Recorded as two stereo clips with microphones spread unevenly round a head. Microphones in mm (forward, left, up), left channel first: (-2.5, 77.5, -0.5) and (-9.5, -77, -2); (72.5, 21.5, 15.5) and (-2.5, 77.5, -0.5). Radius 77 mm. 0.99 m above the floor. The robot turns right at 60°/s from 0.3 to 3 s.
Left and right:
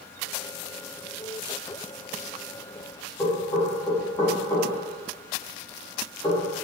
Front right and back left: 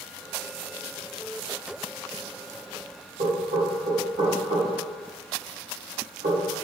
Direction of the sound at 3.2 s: 175° left.